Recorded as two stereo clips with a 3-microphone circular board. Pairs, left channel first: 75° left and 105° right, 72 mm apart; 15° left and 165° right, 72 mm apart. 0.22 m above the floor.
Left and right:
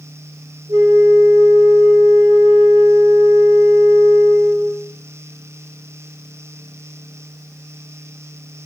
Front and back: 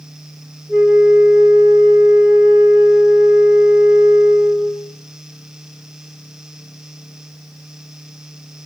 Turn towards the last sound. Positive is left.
turn(degrees=-85)